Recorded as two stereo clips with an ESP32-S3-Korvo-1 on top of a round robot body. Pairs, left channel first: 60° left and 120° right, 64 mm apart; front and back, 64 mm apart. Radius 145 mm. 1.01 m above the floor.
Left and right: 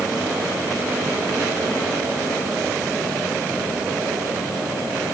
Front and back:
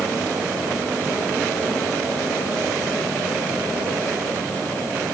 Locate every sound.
Only background noise.